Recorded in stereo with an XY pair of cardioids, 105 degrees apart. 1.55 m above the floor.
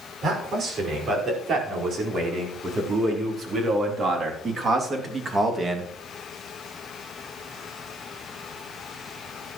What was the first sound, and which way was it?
A man speaking, 60° right.